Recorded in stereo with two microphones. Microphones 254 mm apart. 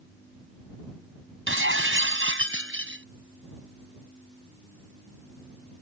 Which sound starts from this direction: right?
Breaking glass, at 1.5 s.